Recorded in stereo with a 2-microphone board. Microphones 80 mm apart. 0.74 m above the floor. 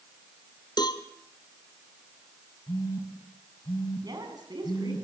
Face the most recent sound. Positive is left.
turn(degrees=-60)  # may be behind; listen again after turning